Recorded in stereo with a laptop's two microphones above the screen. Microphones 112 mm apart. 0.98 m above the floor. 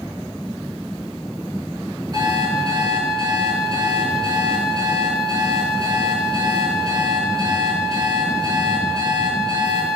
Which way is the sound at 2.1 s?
35° right (ahead or behind).